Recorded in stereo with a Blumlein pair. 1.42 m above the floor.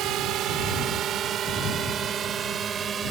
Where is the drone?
35° right; by 3.1 s 20° right.